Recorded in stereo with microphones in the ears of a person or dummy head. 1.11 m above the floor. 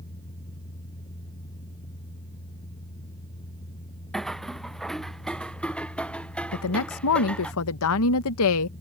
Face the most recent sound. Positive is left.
turn(degrees=75)  # may be behind; listen again after turning